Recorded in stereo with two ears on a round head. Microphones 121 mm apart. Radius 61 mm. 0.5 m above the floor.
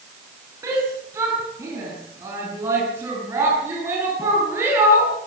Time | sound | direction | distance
0.6 | a shout | 20° right (ahead or behind) | 5.5 m